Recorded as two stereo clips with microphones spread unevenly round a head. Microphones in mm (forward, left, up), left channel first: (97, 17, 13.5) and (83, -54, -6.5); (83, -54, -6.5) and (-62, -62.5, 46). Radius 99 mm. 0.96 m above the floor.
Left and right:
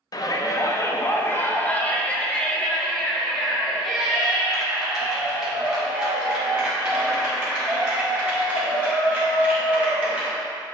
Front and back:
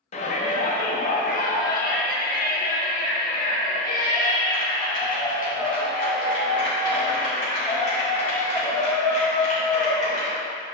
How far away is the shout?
About 1.1 m.